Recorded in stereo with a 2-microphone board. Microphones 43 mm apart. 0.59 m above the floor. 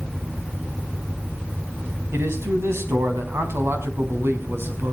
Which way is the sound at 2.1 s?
75° right (ahead or behind).